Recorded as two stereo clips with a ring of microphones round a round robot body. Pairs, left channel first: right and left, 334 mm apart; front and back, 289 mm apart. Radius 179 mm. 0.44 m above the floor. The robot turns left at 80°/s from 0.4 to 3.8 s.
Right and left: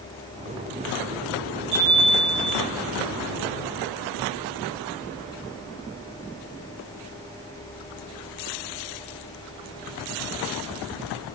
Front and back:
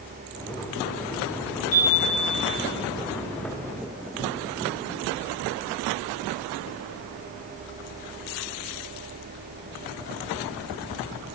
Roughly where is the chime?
Ahead left.